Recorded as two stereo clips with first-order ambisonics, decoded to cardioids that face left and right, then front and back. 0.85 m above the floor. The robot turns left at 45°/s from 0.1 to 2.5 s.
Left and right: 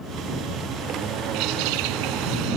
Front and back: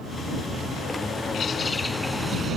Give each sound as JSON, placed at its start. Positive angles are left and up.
{"t": 1.3, "sound": "a bird", "azimuth_deg": -60}